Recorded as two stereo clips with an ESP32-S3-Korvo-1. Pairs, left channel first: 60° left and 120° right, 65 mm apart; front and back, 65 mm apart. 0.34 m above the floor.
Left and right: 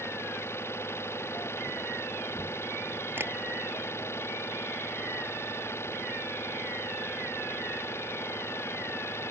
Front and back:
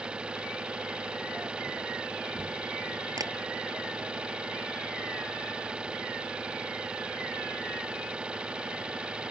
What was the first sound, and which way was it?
An engine running, 105° left.